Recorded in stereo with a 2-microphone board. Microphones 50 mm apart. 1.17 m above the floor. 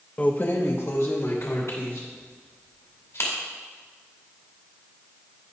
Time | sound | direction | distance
0.2 | keys jangling | 25° left (ahead or behind) | 0.5 m